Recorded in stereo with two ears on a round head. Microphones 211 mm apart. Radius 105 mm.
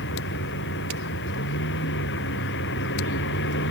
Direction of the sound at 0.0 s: 50° left (ahead or behind).